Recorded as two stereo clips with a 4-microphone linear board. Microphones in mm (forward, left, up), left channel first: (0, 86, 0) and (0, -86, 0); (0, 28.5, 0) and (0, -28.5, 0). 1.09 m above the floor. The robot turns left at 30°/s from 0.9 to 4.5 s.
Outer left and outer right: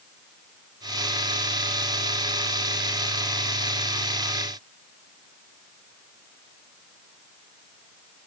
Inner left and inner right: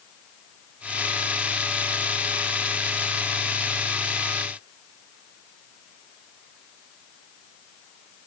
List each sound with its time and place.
Only background noise.